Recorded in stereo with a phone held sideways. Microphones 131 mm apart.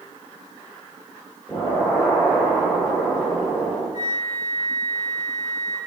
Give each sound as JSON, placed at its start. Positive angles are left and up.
{"t": 1.5, "sound": "an explosion", "side_deg": 20, "distance_m": 5.0}
{"t": 3.9, "sound": "a flute", "side_deg": 65, "distance_m": 2.5}